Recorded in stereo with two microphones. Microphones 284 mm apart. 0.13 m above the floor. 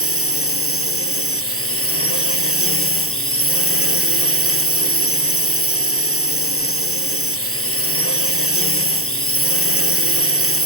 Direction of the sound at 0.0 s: 50° left (ahead or behind).